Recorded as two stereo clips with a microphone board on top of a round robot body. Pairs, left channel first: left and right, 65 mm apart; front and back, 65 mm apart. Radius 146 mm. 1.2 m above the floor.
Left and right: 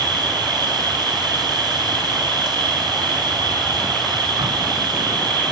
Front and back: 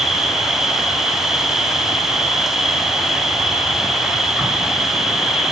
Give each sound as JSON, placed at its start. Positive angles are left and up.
{"t": 0.0, "sound": "an insect", "azimuth_deg": -95, "distance_m": 3.0}